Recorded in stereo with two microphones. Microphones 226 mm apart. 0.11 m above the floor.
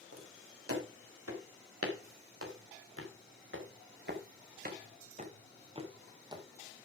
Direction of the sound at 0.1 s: 85° right.